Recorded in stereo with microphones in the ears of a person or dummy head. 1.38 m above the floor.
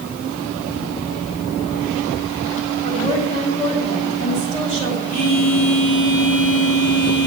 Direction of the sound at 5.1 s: 40° left (ahead or behind).